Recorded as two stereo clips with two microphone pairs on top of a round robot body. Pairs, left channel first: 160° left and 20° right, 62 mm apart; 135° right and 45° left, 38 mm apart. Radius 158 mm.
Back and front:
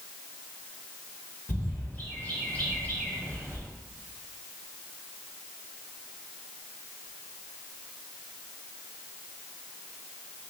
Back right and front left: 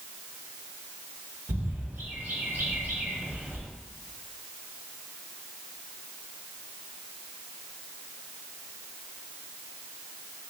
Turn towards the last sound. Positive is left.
turn(degrees=95)